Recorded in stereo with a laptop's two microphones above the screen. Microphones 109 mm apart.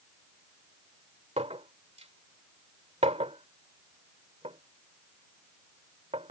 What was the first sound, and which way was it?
A clink, 85° right.